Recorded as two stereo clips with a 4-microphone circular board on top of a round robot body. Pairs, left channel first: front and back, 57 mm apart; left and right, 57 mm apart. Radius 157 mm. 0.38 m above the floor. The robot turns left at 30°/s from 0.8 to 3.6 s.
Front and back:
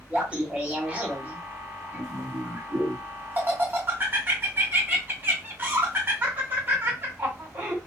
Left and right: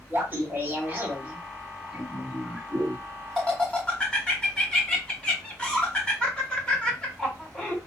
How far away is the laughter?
About 1.5 m.